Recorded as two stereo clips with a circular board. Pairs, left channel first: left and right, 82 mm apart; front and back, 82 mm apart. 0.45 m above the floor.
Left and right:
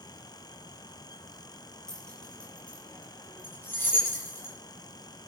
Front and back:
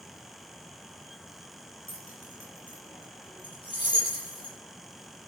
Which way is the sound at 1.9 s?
5° left.